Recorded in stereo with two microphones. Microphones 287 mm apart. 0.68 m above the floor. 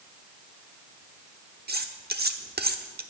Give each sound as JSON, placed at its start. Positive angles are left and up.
{"t": 1.7, "sound": "cutlery clinking", "side_deg": -35, "distance_m": 1.0}